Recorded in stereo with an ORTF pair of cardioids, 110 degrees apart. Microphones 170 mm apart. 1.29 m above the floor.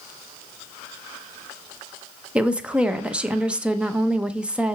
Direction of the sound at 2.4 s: 5° right.